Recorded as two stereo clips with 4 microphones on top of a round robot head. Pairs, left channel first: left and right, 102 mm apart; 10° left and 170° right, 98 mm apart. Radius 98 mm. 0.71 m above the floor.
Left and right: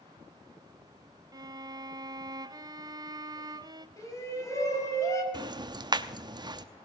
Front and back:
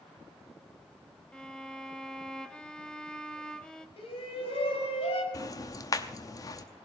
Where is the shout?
30° left, 5 m.